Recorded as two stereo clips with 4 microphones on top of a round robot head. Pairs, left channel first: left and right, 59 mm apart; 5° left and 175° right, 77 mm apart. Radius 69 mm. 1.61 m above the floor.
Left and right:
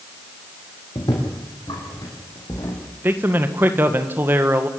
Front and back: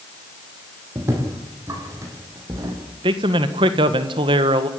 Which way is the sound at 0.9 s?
130° left.